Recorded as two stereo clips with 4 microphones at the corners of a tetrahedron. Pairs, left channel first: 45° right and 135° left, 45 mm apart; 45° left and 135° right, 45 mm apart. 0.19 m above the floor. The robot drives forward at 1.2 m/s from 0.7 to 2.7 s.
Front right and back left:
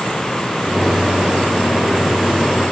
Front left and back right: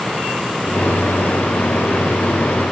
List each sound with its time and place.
Only background noise.